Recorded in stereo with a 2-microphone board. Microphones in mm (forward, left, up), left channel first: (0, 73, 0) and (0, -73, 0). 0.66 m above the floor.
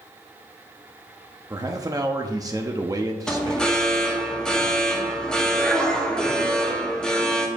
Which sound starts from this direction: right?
A man speaking, at 1.5 s.